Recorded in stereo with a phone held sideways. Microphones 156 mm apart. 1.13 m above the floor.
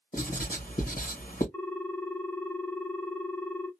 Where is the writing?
70° left (ahead or behind), 1.4 m.